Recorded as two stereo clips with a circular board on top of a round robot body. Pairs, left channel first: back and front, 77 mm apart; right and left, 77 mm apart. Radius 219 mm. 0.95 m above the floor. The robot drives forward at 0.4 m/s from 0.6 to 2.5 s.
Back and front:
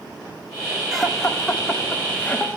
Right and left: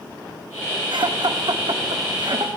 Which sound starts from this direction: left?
Laughter, at 0.9 s.